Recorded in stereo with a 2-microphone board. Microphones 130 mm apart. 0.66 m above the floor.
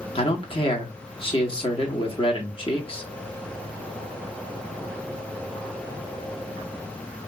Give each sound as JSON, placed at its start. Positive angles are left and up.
{"t": 0.1, "sound": "a man speaking", "side_deg": 45, "distance_m": 1.2}